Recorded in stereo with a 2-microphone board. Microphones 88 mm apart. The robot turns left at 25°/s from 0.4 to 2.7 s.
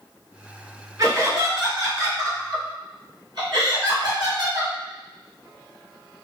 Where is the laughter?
50° right, 1.9 m; by 4.7 s 95° right, 1.9 m.